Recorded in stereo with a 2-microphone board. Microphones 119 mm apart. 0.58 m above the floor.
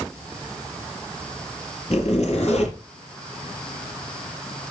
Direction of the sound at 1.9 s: 60° left (ahead or behind).